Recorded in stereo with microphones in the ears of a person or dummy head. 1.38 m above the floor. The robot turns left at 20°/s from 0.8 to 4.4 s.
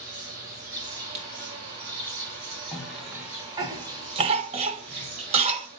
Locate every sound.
0.0 s an insect: 50° right, 6 m; by 5.8 s 125° right, 6 m
1.1 s writing: 50° right (ahead or behind), 5.5 m; by 1.3 s 55° right (ahead or behind), 5.5 m
2.7 s a cough: 5° right (ahead or behind), 1.1 m; by 5.7 s 35° right (ahead or behind), 1.1 m